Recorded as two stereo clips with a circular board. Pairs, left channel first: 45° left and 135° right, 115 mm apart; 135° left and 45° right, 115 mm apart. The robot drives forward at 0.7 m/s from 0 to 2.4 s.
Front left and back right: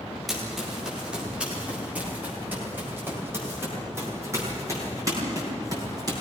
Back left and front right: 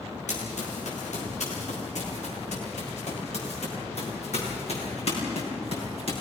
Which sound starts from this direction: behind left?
Running footsteps, at 0.3 s.